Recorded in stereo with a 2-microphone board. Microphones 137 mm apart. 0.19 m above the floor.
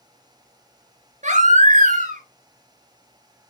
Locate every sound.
1.2 s a baby crying: 65° right (ahead or behind), 2.5 m